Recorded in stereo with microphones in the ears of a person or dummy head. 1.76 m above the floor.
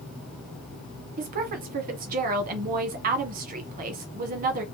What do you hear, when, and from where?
1.2 s a woman speaking: 45° right (ahead or behind), 1.2 m